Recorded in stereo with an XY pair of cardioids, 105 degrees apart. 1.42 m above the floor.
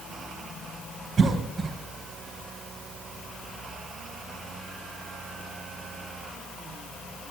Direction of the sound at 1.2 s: 45° right.